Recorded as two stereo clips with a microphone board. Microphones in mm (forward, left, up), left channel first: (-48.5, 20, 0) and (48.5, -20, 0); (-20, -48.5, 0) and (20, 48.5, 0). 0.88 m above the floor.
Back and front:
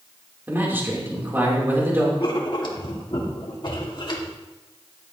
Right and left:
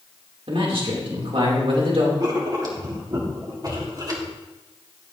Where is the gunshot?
No gunshot in this recording.